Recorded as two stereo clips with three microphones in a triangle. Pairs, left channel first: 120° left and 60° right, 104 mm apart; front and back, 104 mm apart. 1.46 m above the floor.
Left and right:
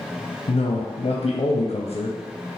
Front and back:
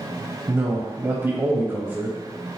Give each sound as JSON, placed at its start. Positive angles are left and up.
{"t": 0.5, "sound": "a man speaking", "azimuth_deg": 115, "distance_m": 0.5}